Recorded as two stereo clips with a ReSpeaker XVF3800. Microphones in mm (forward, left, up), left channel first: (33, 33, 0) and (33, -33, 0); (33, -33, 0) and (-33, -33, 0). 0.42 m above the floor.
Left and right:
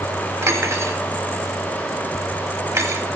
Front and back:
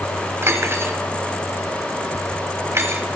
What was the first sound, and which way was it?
Cutlery clinking, 130° right.